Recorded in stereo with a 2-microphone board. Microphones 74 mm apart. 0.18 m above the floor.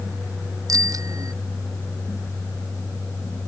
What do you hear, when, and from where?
0.7 s a bicycle bell: 55° right (ahead or behind)